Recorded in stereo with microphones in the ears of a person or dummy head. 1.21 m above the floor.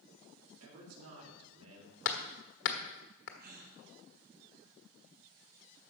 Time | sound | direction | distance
0.6 | a man speaking | 80° right | 3.5 m
2.0 | hammering | 60° left (ahead or behind) | 1.3 m
3.4 | a gasp | 55° right (ahead or behind) | 2 m